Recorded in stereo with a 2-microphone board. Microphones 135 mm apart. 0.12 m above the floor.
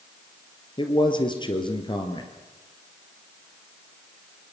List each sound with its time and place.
0.8 s a man speaking: 35° left (ahead or behind), 3 m